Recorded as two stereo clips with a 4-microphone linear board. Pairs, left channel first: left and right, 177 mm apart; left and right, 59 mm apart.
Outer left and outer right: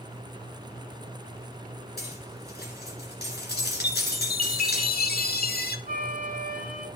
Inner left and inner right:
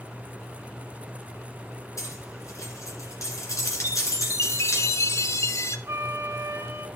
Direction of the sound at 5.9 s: 55° right (ahead or behind).